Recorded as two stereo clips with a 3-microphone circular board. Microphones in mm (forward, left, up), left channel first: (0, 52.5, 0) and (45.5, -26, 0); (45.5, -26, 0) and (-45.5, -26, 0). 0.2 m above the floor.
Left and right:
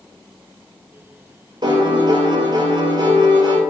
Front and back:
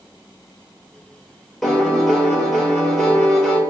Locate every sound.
1.6 s a piano: 85° right, 0.7 m